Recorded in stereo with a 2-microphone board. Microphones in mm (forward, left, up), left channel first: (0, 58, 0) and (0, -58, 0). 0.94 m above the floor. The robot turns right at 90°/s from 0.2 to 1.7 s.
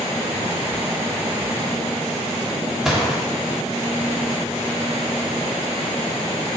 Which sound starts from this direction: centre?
A gunshot, at 2.9 s.